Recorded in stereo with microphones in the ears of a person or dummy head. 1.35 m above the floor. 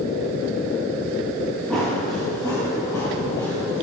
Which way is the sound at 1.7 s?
10° left (ahead or behind).